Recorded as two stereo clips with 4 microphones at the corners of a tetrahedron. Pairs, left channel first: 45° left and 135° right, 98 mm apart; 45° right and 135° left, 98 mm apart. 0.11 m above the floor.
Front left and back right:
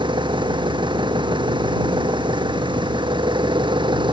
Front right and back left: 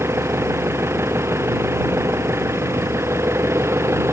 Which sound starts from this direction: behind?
An engine running, at 0.0 s.